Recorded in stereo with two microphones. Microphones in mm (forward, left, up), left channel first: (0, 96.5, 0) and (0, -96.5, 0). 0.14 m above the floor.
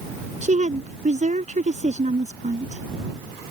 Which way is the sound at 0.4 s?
40° right (ahead or behind).